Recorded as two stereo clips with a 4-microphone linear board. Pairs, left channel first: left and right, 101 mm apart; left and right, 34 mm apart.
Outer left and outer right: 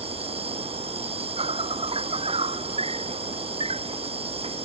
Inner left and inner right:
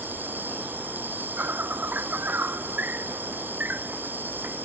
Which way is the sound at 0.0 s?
75° right (ahead or behind).